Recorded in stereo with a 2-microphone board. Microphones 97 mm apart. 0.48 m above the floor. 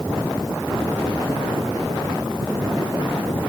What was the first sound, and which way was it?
Only background noise.